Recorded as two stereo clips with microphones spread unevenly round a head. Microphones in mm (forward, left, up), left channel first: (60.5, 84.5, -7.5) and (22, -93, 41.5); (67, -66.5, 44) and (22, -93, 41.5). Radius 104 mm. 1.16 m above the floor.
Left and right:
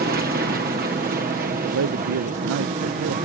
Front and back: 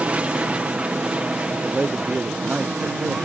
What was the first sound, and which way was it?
An aircraft, 110° right.